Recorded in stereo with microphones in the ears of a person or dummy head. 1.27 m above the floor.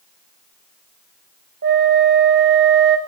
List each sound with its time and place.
1.6 s a flute: 60° right (ahead or behind), 0.8 m